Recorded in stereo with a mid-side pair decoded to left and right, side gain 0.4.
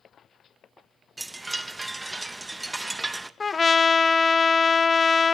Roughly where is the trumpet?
Ahead left.